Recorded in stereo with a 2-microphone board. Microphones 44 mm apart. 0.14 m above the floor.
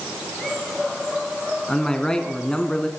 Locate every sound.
1.7 s a man speaking: 15° left (ahead or behind), 1.3 m